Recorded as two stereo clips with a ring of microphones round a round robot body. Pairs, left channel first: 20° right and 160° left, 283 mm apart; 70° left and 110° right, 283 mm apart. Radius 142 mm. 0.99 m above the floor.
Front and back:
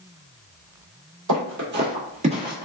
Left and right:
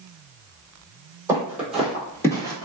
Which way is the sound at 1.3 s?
170° left.